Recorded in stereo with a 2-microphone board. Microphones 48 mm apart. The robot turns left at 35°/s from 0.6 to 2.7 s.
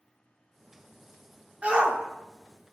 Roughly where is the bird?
I don't hear a bird.